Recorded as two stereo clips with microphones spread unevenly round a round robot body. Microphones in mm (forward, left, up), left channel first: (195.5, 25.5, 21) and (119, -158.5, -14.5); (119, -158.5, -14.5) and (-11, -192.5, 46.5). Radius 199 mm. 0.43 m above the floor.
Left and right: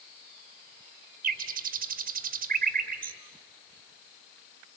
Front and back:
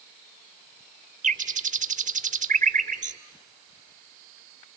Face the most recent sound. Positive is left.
turn(degrees=-125)